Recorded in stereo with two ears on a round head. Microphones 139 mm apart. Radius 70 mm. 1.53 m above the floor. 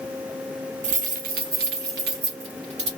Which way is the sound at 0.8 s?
45° right (ahead or behind).